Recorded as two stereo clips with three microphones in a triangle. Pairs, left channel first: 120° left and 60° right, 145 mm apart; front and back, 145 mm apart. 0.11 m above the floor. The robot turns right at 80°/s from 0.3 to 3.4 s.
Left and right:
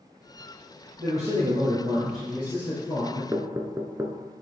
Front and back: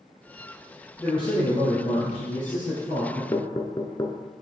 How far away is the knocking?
About 0.8 m.